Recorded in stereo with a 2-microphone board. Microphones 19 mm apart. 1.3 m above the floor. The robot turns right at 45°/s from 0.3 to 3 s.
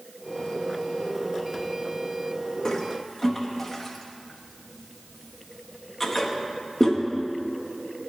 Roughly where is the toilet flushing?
Left.